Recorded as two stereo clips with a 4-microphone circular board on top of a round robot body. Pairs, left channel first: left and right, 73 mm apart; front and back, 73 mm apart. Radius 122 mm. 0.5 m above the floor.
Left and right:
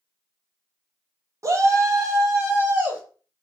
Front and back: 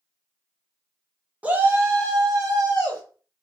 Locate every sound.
1.4 s a shout: 115° right, 1.0 m; by 3.0 s 145° right, 2.5 m